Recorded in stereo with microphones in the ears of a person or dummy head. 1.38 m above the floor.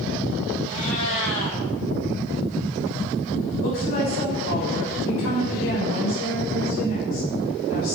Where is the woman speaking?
80° left, 7 m.